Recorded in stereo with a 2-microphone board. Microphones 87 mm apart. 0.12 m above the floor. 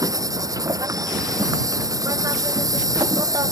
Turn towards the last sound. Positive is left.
turn(degrees=-40)  # may be behind; listen again after turning